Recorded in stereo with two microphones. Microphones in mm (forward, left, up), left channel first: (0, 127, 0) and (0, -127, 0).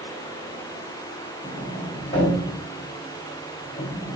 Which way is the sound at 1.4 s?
55° left (ahead or behind).